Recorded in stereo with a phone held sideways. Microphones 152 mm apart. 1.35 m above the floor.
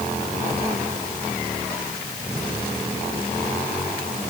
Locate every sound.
Only background noise.